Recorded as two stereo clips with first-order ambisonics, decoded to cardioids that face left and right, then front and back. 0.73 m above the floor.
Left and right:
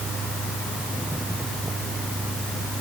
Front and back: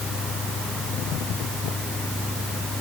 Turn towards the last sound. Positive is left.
No sound to turn to.